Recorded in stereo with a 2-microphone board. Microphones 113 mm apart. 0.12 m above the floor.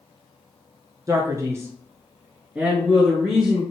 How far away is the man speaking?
About 1.2 m.